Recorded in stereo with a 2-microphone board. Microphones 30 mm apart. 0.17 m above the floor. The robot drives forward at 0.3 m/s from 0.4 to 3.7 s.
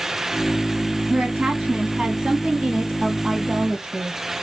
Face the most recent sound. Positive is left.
turn(degrees=-40)  # may be behind; listen again after turning